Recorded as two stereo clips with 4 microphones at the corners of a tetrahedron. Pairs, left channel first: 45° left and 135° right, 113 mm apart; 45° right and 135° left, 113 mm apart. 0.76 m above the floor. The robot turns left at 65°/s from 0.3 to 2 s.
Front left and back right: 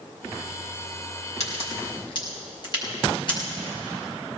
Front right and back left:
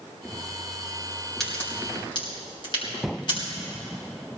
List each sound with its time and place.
1.4 s a crack: 40° left, 4.5 m; by 3.4 s straight ahead, 4.5 m